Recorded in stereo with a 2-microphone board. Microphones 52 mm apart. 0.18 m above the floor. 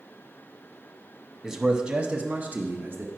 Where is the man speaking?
5° right (ahead or behind), 1.0 m; by 3.1 s 45° right (ahead or behind), 1.3 m.